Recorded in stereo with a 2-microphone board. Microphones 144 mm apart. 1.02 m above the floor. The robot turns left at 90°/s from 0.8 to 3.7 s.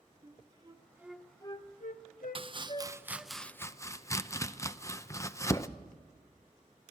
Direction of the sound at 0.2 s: 30° right (ahead or behind).